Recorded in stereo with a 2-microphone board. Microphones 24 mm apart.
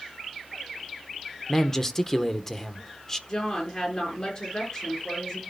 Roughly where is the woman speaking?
Left.